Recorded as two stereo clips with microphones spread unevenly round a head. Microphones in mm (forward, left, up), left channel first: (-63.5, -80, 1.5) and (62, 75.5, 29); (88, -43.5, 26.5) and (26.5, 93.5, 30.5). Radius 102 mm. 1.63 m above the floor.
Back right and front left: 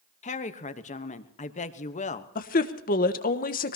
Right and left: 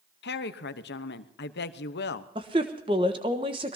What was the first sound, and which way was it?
A woman speaking, 70° right.